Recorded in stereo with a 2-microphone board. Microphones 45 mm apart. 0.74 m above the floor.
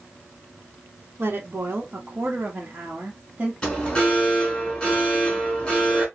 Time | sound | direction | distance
1.2 | a woman speaking | 50° right (ahead or behind) | 1.3 m
3.6 | an alarm | 15° left (ahead or behind) | 3 m